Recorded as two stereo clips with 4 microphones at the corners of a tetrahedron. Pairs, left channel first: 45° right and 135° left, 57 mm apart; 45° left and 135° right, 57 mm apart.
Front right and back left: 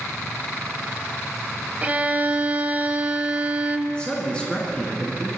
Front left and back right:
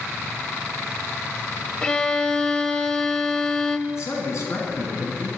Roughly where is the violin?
Left.